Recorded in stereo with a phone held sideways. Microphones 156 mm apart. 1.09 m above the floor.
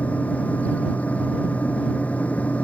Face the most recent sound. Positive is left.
turn(degrees=10)  # may be behind; listen again after turning